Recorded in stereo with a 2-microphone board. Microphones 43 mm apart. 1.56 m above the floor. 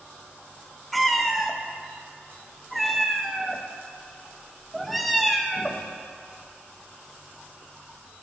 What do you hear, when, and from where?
0.9 s a cat meowing: centre (ahead or behind), 0.8 m